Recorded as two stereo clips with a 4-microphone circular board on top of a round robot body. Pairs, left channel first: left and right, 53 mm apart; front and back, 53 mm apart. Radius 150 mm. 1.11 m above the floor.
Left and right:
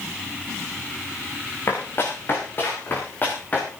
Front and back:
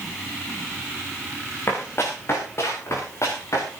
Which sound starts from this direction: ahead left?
Running footsteps, at 1.7 s.